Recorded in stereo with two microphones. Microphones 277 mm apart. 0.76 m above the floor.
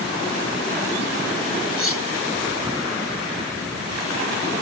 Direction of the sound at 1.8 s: 50° left (ahead or behind).